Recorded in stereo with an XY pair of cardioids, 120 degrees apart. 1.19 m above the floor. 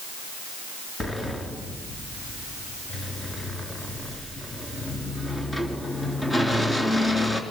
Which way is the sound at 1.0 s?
15° left.